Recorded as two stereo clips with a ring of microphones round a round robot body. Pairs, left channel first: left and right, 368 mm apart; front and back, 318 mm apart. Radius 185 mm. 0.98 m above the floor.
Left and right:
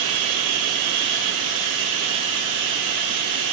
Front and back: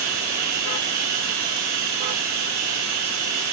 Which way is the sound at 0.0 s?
130° right.